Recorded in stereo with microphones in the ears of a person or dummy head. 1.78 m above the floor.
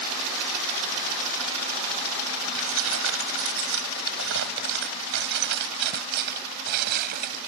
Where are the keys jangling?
80° right; by 7.4 s 50° right (ahead or behind).